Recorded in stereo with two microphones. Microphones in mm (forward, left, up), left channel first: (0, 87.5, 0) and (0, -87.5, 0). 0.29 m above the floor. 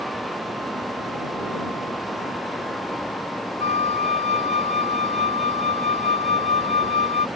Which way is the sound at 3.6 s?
40° left (ahead or behind).